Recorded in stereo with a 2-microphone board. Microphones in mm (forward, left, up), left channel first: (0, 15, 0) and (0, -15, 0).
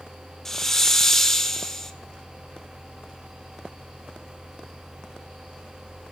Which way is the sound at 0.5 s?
15° left (ahead or behind).